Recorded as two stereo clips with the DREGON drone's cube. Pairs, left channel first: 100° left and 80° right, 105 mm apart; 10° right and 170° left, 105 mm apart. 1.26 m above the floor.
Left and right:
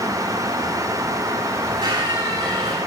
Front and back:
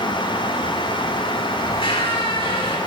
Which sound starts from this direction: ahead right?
A squeak, at 1.6 s.